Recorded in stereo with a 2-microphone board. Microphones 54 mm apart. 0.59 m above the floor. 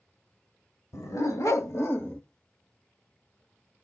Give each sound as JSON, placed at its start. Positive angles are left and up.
{"t": 0.9, "sound": "a dog barking", "side_deg": 85, "distance_m": 1.8}